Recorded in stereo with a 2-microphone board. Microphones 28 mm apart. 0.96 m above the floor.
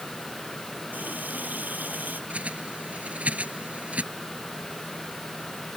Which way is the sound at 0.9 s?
85° right.